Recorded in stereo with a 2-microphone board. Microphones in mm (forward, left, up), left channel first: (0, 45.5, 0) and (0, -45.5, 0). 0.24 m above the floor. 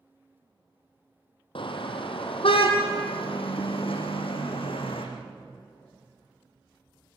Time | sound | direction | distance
1.6 | a car horn | 70° left (ahead or behind) | 3.5 m